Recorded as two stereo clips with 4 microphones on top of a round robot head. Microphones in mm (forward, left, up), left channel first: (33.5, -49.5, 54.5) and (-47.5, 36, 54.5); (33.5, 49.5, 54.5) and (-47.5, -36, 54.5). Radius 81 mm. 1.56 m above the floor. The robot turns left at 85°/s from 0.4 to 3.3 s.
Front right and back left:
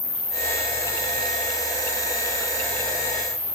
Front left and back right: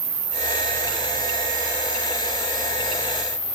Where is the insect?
100° right, 5 m; by 3.5 s 15° left, 5 m.